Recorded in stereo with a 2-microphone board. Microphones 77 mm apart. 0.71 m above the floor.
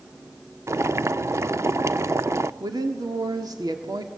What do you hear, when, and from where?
0.7 s boiling: 40° right (ahead or behind), 0.6 m
2.6 s a woman speaking: 60° right (ahead or behind), 1.9 m